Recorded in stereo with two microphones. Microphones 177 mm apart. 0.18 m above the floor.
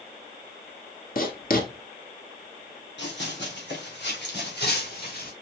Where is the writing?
55° left (ahead or behind), 1.2 m.